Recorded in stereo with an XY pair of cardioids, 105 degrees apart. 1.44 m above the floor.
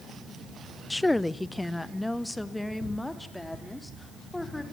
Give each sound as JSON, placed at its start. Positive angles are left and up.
{"t": 0.9, "sound": "a woman speaking", "azimuth_deg": 10, "distance_m": 0.6}